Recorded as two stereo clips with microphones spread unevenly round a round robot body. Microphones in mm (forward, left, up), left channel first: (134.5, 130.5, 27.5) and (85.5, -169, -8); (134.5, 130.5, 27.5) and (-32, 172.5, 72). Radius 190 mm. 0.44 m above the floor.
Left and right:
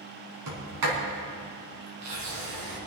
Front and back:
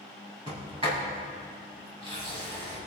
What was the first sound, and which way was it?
A sliding door, 120° right.